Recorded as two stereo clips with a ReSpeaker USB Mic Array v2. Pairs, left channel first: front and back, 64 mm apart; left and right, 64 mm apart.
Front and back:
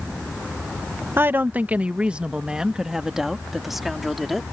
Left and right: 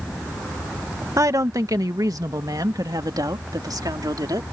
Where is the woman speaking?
125° right; by 4.4 s 90° right.